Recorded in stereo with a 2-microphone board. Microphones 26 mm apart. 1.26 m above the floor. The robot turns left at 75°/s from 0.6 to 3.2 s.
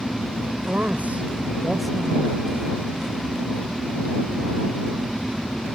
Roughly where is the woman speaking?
Right.